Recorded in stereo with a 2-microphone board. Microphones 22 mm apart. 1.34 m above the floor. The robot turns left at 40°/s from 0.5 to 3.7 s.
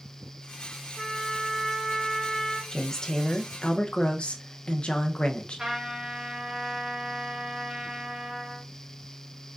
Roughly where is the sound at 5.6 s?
Right.